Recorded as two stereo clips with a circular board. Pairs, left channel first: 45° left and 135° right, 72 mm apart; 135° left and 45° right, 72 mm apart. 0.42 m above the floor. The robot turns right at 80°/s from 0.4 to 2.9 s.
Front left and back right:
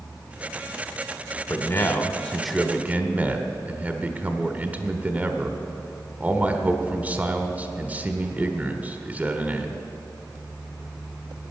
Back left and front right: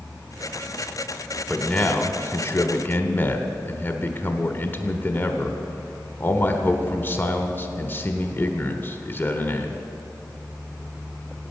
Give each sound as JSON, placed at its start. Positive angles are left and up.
{"t": 1.5, "sound": "a man speaking", "azimuth_deg": 60, "distance_m": 1.2}